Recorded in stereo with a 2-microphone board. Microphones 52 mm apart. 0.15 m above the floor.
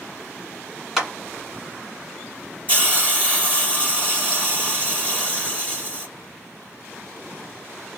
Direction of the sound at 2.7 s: 30° right (ahead or behind).